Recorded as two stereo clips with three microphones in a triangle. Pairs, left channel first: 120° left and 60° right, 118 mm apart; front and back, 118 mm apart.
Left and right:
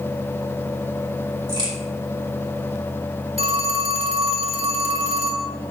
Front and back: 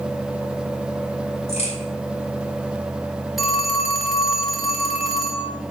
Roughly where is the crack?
Ahead.